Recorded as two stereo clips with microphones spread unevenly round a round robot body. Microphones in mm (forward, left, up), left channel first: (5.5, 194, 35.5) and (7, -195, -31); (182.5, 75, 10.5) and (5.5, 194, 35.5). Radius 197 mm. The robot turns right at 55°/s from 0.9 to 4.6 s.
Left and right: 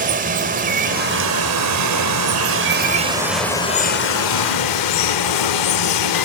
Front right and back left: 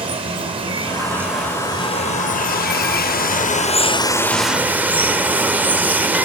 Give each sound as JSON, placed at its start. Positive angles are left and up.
{"t": 0.0, "sound": "running water", "azimuth_deg": -145, "distance_m": 1.2}